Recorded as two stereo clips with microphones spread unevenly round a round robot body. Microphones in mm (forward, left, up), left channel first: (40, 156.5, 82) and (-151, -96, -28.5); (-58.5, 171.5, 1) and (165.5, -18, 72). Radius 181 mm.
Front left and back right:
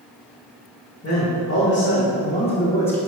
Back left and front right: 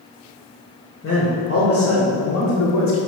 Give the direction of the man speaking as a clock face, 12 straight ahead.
9 o'clock.